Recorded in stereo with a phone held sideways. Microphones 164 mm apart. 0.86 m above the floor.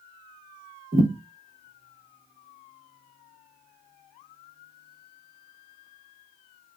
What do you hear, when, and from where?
0.9 s a thud: 55° right (ahead or behind), 1.2 m